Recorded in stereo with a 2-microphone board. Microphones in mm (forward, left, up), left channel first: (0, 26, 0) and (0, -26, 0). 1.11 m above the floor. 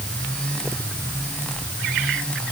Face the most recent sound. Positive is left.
No sound to turn to.